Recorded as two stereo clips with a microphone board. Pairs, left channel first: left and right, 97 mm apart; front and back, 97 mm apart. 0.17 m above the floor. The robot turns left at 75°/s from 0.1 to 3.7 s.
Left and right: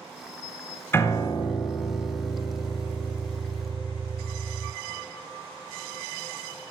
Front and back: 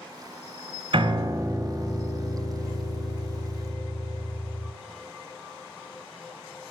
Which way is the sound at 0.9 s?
155° left.